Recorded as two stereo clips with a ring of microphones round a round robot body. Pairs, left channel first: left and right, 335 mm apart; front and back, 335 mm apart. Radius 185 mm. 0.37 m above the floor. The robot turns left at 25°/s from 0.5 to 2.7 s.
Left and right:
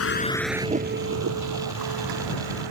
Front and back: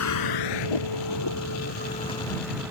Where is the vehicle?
45° left; by 2.7 s 95° right.